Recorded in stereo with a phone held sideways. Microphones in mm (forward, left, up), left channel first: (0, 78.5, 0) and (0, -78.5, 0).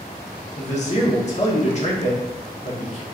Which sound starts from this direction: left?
A man speaking, at 0.6 s.